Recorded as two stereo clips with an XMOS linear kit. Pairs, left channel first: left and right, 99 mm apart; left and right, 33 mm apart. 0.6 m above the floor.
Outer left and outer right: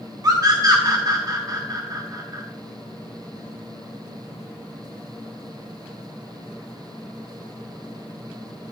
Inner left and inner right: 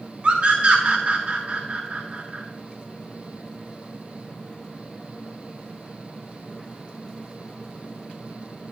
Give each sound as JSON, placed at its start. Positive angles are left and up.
{"t": 0.2, "sound": "a scream", "side_deg": -40, "distance_m": 1.5}